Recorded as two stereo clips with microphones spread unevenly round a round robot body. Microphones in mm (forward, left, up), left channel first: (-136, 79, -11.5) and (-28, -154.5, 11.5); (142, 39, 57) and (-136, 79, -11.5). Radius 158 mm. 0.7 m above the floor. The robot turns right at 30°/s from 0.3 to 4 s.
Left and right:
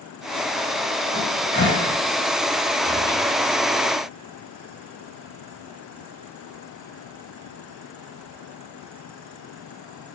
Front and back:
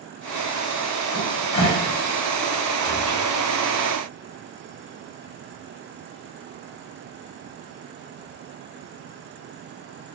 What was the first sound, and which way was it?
A cupboard door, 40° left.